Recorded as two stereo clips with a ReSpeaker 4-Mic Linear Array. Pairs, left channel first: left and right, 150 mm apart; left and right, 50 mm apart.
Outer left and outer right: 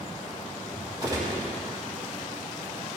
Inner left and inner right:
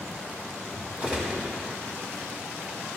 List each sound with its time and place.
1.0 s a gunshot: 25° right (ahead or behind), 2.5 m